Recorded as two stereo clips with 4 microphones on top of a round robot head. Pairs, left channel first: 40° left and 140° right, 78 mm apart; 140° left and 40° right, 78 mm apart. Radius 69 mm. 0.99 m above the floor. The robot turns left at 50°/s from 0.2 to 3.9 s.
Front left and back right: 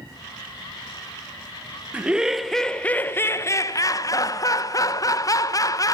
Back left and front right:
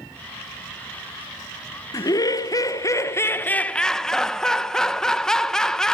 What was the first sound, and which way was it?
Laughter, 155° left.